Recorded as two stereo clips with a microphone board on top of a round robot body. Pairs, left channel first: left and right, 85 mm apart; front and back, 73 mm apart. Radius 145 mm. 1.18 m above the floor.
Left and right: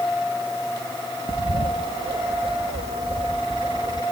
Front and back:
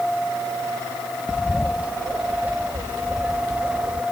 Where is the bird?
105° right.